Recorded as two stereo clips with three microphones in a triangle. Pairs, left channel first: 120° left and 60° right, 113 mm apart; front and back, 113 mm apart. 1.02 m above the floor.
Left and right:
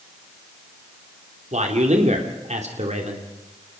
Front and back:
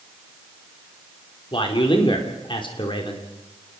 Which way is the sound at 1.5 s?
45° right.